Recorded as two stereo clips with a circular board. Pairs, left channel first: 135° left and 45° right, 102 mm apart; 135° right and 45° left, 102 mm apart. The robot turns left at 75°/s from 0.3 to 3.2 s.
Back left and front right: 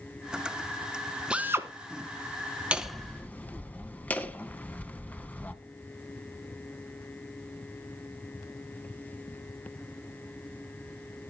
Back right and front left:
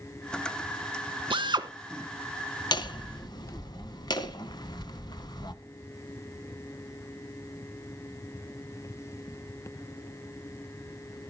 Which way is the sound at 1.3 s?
35° left.